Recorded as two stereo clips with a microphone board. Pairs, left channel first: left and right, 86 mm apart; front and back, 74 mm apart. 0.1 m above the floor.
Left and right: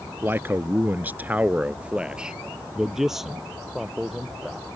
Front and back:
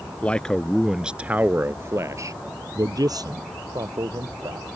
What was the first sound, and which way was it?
A man speaking, 55° right.